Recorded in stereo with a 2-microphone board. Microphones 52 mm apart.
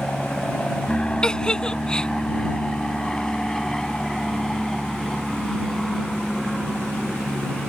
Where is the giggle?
15° left (ahead or behind).